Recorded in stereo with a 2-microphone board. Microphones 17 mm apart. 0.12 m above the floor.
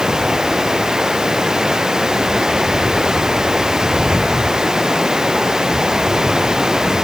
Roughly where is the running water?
Right.